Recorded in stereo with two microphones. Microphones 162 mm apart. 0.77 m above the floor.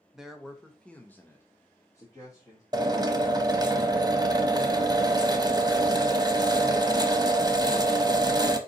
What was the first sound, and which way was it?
A man speaking, 5° right (ahead or behind).